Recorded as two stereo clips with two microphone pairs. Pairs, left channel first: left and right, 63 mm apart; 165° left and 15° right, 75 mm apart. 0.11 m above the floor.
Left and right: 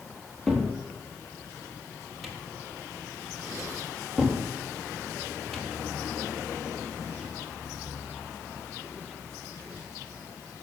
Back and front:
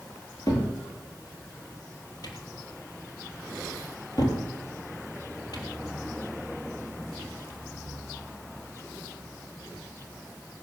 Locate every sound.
0.5 s a cupboard door: 170° left, 3.5 m